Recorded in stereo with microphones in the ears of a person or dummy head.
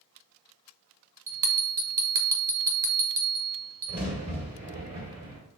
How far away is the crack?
About 1.8 m.